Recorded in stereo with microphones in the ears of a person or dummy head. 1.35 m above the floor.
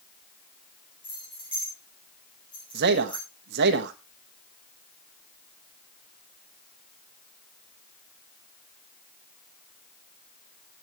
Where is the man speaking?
55° right (ahead or behind), 1.3 m.